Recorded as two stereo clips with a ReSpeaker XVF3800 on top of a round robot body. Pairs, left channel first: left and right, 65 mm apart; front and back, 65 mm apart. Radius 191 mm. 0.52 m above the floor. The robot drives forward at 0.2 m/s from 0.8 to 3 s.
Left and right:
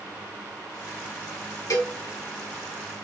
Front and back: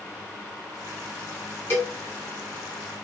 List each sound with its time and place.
1.7 s a cowbell: 60° left, 1.3 m